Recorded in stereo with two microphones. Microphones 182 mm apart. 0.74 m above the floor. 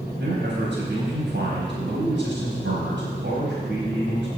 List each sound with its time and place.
0.2 s a man speaking: 80° right, 4.5 m